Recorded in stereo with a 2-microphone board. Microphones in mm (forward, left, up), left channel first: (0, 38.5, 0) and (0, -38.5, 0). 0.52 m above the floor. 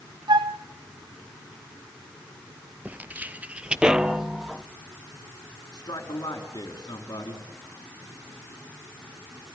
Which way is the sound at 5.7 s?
60° left (ahead or behind).